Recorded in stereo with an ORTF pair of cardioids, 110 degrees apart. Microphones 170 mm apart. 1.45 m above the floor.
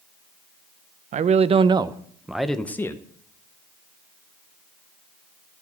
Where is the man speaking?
50° right, 0.9 m; by 3.0 s 20° left, 1.0 m.